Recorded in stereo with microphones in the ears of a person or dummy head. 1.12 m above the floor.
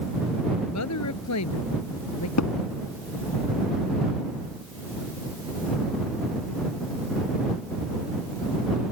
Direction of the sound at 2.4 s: 85° left.